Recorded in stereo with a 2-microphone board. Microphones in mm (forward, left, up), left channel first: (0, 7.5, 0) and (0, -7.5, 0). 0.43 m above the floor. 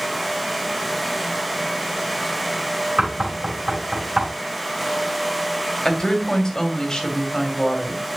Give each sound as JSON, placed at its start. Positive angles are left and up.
{"t": 3.0, "sound": "knocking", "side_deg": -45, "distance_m": 4.5}
{"t": 5.8, "sound": "a woman speaking", "side_deg": 40, "distance_m": 2.0}